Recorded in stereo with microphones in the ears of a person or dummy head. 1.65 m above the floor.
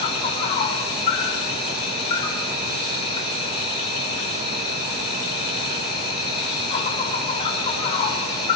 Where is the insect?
35° left (ahead or behind), 4 m.